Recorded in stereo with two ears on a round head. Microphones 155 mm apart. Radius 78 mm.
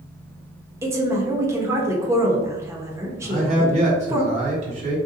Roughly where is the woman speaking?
Centre.